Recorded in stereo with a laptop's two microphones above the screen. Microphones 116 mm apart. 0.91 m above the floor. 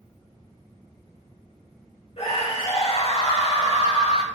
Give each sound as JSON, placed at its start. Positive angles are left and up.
{"t": 2.2, "sound": "a scream", "side_deg": 60, "distance_m": 5.0}